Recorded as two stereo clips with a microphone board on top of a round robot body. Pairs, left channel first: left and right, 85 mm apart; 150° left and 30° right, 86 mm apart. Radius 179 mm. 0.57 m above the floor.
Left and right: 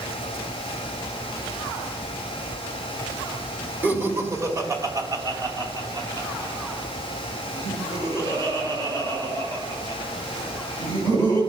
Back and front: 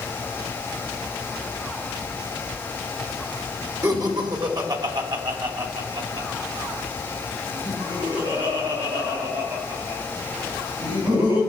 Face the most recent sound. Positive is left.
turn(degrees=-60)